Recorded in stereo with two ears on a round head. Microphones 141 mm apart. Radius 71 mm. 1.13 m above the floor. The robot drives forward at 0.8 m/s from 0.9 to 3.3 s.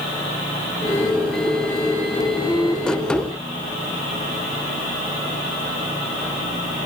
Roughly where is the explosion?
I don't hear an explosion.